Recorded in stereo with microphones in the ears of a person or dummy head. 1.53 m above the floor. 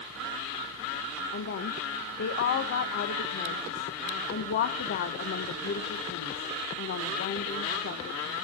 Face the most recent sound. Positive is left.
turn(degrees=55)  # may be behind; listen again after turning